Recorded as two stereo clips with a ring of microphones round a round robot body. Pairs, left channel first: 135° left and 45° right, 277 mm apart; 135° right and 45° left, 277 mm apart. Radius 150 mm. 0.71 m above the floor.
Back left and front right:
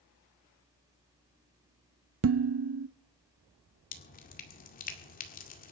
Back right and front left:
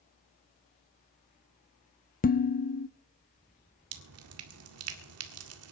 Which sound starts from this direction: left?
Dripping, at 3.9 s.